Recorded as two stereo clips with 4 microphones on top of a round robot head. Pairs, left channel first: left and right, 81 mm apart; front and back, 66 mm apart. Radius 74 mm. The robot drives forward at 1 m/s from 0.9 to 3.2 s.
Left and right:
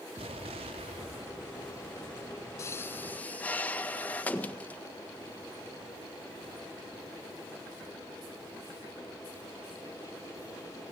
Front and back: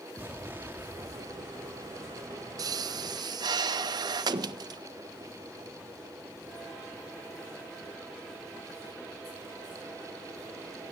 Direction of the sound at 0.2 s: 105° right.